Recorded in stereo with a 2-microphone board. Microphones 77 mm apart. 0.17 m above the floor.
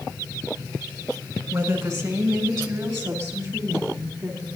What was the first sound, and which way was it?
A woman speaking, 30° right (ahead or behind).